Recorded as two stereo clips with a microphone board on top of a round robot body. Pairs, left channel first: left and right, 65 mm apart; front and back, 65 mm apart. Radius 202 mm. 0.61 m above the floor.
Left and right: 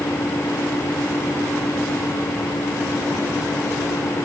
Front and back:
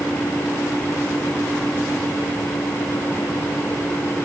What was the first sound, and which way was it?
Only background noise.